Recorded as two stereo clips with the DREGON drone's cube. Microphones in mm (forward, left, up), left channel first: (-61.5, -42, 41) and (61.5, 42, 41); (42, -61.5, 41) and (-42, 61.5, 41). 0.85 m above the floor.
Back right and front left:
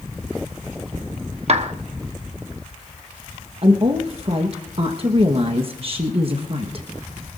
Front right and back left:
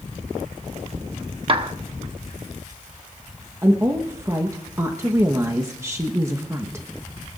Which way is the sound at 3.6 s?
60° left.